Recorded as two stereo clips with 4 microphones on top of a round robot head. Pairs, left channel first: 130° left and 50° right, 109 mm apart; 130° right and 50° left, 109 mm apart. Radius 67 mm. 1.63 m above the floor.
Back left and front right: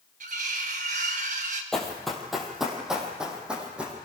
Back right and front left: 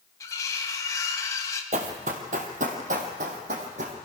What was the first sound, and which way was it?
Cutlery clinking, 70° right.